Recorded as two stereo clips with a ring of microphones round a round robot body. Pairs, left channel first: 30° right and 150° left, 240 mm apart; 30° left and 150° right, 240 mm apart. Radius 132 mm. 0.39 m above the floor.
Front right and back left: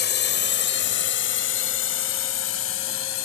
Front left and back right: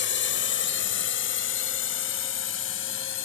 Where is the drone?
5° left; by 3.3 s 5° right.